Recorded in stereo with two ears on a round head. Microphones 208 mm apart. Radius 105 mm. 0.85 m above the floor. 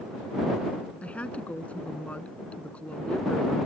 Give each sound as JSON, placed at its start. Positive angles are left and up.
{"t": 1.0, "sound": "a woman speaking", "side_deg": 5}